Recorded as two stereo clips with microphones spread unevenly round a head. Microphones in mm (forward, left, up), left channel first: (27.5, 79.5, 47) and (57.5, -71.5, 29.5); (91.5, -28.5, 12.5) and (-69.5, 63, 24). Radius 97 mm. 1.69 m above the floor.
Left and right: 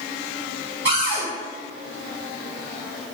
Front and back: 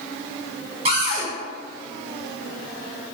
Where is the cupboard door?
165° right, 1.0 m.